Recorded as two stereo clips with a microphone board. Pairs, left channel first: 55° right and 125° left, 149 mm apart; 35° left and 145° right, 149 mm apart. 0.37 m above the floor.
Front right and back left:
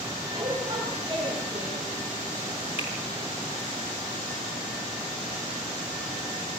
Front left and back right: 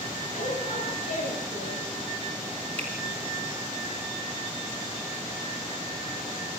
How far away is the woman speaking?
About 7.5 m.